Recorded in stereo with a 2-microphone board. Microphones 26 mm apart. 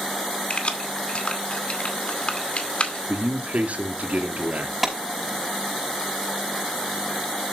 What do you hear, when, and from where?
0.5 s keys jangling: 45° left (ahead or behind), 2 m
3.1 s a man speaking: 70° right (ahead or behind), 2.5 m
4.8 s a clap: 5° right (ahead or behind), 5 m